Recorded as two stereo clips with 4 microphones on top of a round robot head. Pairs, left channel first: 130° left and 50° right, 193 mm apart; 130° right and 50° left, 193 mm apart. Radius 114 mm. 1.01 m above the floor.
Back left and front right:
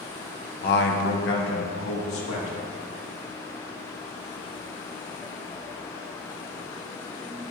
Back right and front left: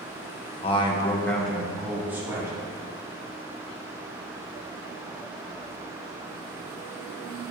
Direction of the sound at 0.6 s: 170° left.